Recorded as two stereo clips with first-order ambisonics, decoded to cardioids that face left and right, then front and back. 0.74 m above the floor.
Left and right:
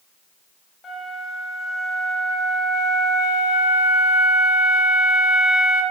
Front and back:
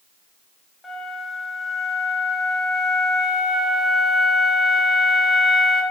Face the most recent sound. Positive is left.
turn(degrees=60)